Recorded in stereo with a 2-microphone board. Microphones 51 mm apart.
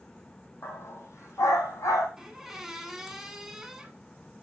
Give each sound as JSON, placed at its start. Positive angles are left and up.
{"t": 0.6, "sound": "a dog barking", "side_deg": 55, "distance_m": 1.8}
{"t": 2.2, "sound": "a squeak", "side_deg": -10, "distance_m": 1.1}